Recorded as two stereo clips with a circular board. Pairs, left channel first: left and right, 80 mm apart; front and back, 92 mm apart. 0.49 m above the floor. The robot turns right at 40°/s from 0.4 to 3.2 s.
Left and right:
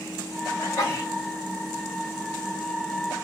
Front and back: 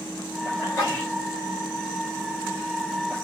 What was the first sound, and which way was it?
A sneeze, 60° left.